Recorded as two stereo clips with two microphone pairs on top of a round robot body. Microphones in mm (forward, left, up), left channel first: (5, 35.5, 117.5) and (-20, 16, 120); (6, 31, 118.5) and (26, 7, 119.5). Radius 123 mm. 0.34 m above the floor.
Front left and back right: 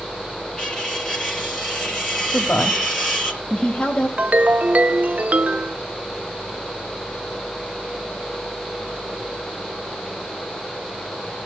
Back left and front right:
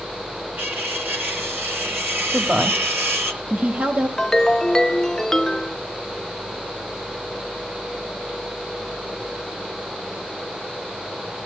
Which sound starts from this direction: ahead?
A woman speaking, at 2.3 s.